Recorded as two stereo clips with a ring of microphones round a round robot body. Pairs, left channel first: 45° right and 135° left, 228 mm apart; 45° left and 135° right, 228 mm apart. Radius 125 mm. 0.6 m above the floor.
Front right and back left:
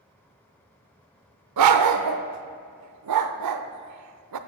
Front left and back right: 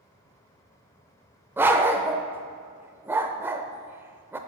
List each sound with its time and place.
1.6 s a dog barking: 145° left, 0.6 m